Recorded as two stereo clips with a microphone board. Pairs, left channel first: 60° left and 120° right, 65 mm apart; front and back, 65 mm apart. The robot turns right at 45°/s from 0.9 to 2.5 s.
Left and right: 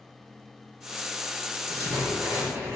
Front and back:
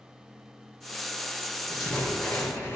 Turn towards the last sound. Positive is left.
turn(degrees=-60)